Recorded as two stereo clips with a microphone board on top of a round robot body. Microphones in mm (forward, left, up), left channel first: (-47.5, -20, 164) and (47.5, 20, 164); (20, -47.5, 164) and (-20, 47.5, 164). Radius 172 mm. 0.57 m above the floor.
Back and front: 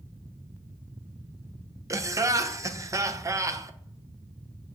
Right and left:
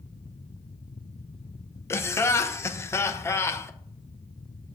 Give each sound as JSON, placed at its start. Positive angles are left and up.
{"t": 1.9, "sound": "laughter", "azimuth_deg": -20, "distance_m": 0.6}